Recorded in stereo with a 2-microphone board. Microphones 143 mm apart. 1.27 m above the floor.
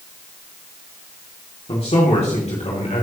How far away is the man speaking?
About 2.5 m.